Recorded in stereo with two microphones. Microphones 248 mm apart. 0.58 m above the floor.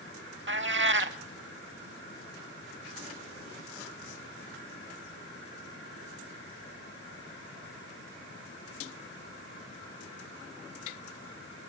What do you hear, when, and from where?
0.5 s a cat meowing: 50° right (ahead or behind), 0.6 m